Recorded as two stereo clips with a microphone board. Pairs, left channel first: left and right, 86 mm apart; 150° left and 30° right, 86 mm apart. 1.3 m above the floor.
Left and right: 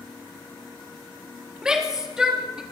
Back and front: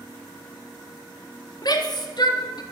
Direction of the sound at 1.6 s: 175° right.